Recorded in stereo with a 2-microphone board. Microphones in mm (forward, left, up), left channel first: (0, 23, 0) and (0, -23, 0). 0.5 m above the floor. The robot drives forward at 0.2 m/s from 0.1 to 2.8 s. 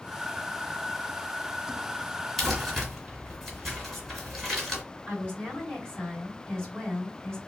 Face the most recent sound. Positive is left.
turn(degrees=20)  # may be behind; listen again after turning